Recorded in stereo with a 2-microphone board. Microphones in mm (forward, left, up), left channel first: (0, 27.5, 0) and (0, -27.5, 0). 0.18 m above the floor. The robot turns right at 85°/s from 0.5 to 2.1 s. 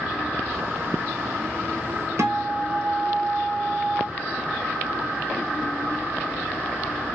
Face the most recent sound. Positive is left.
turn(degrees=-60)  # may be behind; listen again after turning